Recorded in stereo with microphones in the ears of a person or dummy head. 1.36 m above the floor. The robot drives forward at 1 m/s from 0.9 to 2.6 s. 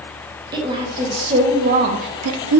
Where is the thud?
I don't hear a thud.